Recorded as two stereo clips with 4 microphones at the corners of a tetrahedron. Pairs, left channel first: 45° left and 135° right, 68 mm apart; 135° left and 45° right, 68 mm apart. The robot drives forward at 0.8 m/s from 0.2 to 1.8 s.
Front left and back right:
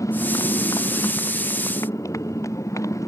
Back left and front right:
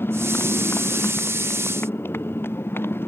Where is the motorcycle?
80° left.